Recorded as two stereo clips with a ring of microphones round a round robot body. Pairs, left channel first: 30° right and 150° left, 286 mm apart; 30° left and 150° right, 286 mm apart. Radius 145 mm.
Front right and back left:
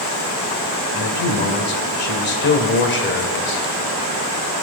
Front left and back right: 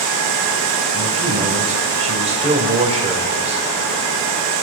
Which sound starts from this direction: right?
A man speaking, at 0.9 s.